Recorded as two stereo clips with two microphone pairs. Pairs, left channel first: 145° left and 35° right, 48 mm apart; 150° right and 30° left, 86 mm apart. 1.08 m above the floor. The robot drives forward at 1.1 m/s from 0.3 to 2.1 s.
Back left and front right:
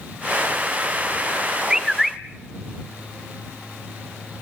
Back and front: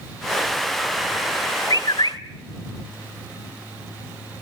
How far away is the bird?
About 1.3 m.